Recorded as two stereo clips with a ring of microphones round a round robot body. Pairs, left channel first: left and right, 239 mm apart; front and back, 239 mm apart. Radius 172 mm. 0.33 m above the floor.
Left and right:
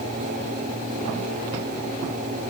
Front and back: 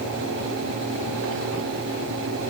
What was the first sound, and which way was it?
Only background noise.